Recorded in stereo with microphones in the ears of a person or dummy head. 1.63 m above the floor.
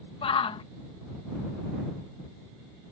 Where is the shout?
30° left (ahead or behind).